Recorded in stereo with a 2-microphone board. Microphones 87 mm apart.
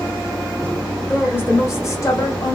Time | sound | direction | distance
1.0 | a woman speaking | 15° left (ahead or behind) | 1.2 m